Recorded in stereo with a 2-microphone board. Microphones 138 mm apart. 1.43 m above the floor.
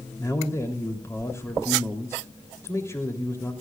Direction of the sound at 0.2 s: 20° left (ahead or behind).